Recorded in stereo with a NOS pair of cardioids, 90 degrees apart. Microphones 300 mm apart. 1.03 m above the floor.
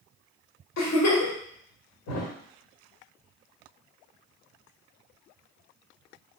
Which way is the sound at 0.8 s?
60° left.